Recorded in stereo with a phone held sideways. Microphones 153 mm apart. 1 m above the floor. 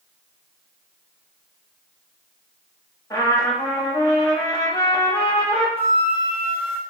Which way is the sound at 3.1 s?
20° left (ahead or behind).